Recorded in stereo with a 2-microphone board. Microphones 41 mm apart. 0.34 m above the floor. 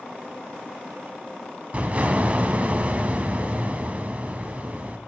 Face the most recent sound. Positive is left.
turn(degrees=-35)  # may be behind; listen again after turning